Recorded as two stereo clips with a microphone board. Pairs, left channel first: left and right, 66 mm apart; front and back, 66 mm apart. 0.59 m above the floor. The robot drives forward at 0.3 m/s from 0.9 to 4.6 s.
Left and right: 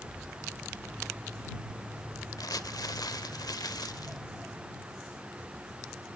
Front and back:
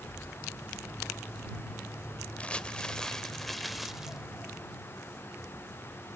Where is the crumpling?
70° left, 1.2 m; by 4.2 s 100° left, 1.1 m.